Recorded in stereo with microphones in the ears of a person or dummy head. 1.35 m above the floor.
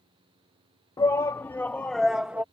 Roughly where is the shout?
Centre.